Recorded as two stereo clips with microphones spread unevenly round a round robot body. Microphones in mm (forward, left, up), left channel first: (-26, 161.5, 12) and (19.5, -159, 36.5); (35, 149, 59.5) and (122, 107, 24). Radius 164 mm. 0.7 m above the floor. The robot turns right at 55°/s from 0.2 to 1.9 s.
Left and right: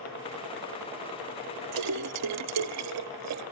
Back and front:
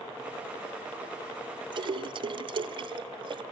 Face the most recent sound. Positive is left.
turn(degrees=-40)